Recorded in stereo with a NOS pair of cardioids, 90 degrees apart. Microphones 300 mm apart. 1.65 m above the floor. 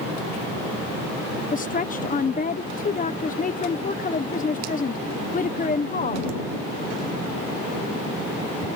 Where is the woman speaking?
25° left.